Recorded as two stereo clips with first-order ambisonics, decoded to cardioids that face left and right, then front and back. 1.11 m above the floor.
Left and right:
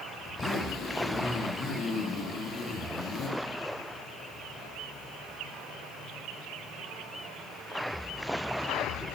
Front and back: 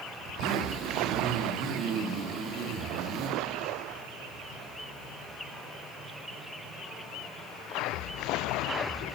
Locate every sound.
0.2 s a zipper: 145° left, 1.6 m